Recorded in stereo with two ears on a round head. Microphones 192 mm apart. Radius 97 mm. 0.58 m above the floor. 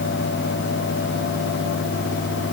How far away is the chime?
I don't hear a chime.